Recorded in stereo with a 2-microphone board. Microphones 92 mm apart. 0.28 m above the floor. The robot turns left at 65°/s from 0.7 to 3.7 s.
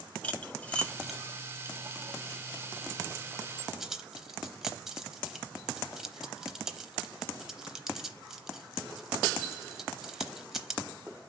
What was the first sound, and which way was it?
Cutlery clinking, 15° left (ahead or behind).